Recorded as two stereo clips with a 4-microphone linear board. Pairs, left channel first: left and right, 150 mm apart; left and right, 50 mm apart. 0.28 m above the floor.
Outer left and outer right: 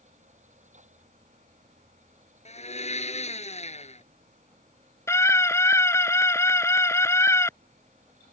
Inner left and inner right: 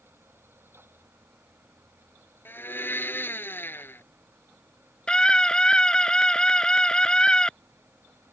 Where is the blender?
45° left (ahead or behind).